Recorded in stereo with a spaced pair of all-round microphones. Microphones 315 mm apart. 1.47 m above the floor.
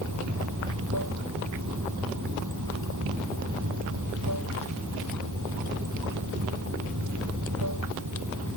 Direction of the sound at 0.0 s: 70° right (ahead or behind).